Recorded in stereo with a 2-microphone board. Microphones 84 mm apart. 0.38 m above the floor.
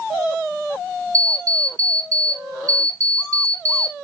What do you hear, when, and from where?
1.1 s an alarm clock: 45° right (ahead or behind), 1.9 m